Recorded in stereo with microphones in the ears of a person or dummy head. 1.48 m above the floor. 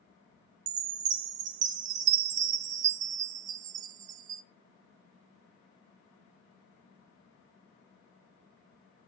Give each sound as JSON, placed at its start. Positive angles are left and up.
{"t": 0.7, "sound": "a chime", "side_deg": -40, "distance_m": 0.5}